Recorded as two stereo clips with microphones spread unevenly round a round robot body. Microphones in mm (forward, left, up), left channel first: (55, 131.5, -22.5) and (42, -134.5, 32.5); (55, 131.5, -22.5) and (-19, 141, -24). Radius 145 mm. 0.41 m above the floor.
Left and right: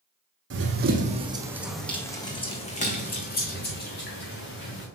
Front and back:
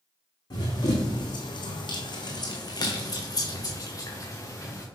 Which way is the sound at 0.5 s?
55° right.